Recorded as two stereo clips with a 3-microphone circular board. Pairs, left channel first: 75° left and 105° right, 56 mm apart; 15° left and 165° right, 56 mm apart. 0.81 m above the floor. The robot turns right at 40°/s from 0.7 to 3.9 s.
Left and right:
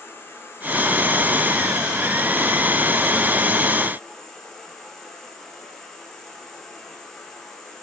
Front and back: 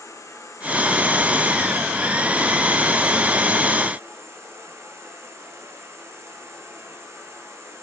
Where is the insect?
30° left, 4.5 m; by 7.8 s 155° left, 4.5 m.